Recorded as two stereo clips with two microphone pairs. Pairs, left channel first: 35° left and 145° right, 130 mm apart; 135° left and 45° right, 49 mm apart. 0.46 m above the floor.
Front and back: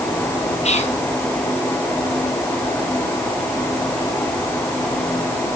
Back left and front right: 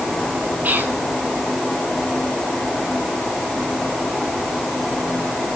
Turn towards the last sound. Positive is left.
turn(degrees=0)